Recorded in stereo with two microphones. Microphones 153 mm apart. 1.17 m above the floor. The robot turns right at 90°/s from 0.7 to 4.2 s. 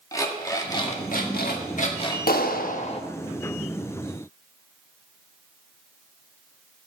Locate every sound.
0.1 s an alarm clock: 25° left, 1.5 m; by 2.2 s 155° left, 1.5 m
2.3 s a clap: 80° left, 1.0 m; by 3.0 s 145° left, 1.0 m